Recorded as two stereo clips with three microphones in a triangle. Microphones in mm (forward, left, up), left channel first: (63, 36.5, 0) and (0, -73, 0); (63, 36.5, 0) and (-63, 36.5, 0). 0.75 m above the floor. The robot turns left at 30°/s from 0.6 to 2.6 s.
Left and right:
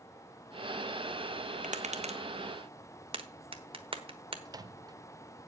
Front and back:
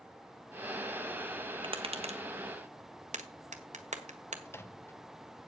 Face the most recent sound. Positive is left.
turn(degrees=-65)